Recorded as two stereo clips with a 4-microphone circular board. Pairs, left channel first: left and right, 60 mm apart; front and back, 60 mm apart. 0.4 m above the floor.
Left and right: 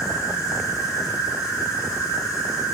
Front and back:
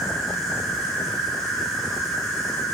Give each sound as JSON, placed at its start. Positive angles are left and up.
{"t": 0.0, "sound": "an insect", "azimuth_deg": 80, "distance_m": 5.0}